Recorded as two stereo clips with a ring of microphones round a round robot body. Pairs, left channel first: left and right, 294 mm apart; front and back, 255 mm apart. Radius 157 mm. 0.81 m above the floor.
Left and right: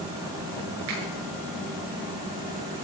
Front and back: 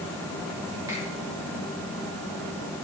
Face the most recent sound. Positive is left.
turn(degrees=-100)